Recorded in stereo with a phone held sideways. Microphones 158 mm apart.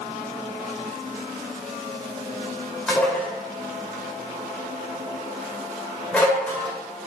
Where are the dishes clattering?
10° left (ahead or behind), 2 m.